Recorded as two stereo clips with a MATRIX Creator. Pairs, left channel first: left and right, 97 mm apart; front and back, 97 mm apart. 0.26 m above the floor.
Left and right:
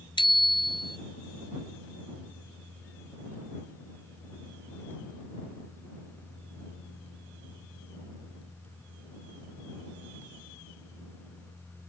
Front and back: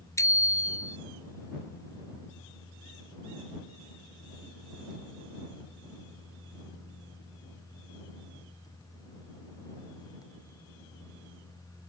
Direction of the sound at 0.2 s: 55° left.